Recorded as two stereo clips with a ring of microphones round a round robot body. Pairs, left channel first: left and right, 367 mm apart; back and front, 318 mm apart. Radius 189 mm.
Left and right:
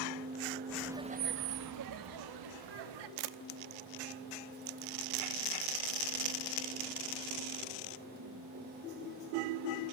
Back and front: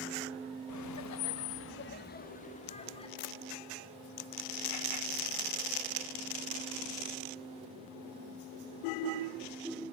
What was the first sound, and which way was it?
Laughter, 175° left.